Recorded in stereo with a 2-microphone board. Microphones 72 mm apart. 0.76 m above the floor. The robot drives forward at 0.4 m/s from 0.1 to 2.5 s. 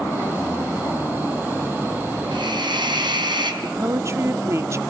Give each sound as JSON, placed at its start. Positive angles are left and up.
{"t": 2.3, "sound": "a hiss", "side_deg": -80, "distance_m": 4.5}
{"t": 3.6, "sound": "a woman speaking", "side_deg": -35, "distance_m": 1.2}